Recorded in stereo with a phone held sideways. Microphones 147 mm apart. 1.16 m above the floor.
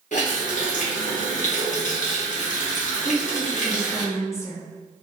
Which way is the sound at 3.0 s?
20° left (ahead or behind).